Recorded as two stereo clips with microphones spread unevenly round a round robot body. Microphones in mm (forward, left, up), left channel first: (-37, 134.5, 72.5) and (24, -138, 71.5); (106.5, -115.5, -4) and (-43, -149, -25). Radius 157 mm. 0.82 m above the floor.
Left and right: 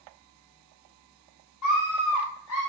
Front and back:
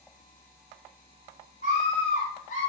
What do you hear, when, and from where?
1.6 s a scream: 80° left, 4.5 m